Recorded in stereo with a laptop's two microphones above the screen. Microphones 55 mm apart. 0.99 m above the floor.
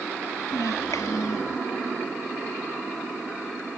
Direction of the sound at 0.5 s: 80° left.